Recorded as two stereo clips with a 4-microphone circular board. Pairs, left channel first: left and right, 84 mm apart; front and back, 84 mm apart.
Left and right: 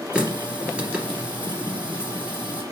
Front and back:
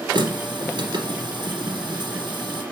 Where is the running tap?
165° right, 2.5 m.